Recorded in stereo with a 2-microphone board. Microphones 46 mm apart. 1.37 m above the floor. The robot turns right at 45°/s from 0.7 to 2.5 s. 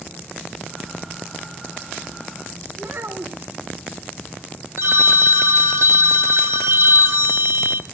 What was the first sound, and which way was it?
A child speaking, 65° right (ahead or behind).